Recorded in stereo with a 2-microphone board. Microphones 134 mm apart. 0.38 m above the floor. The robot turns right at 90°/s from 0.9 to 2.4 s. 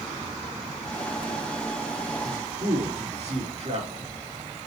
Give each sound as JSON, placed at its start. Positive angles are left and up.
{"t": 2.2, "sound": "a man speaking", "side_deg": -30, "distance_m": 5.0}